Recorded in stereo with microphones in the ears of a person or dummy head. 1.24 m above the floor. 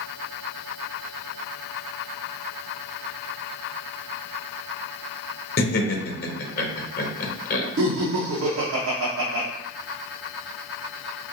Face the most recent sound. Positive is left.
turn(degrees=-70)  # may be behind; listen again after turning